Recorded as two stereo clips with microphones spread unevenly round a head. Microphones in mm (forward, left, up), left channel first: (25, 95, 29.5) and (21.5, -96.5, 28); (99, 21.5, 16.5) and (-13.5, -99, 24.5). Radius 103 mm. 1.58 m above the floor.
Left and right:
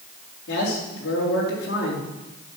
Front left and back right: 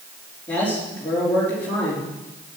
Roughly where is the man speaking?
Behind left.